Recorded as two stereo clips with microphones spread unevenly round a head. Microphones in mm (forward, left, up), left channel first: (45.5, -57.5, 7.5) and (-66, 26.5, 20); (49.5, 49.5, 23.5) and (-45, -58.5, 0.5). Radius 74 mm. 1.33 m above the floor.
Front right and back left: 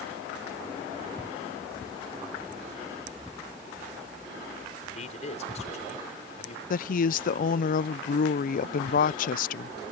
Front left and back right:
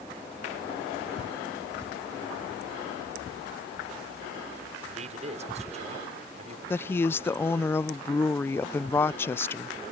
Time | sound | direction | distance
4.8 | a man speaking | 85° right | ?
6.7 | a woman speaking | 30° right | ?